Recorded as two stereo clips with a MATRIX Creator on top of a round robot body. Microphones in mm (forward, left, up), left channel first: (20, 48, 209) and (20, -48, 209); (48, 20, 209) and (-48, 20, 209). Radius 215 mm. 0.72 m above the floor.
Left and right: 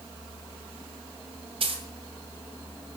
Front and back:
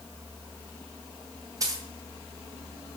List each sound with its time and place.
1.6 s a dropped coin: 125° right, 2.5 m